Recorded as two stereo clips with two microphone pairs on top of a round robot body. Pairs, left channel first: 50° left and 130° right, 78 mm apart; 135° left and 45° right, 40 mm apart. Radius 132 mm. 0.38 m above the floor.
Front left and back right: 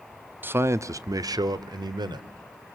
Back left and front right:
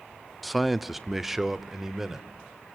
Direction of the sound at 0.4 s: 145° right.